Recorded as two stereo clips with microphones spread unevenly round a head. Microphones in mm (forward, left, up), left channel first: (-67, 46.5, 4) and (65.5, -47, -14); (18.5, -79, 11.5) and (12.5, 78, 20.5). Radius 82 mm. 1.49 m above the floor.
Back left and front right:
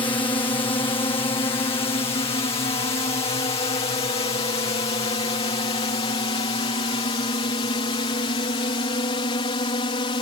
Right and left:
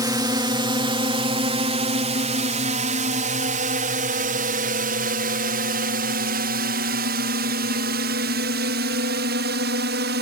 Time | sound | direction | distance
0.0 | a drone | 120° left | ?